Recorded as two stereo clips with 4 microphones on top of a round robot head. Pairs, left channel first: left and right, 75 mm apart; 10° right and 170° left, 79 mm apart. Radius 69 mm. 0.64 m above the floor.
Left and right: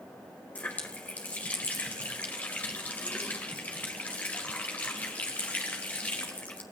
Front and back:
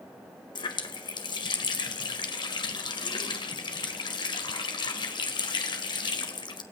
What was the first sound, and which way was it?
A running tap, 15° left.